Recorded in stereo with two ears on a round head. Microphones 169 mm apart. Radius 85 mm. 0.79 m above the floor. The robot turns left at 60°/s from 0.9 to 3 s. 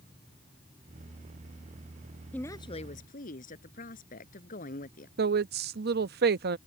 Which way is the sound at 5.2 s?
55° right (ahead or behind).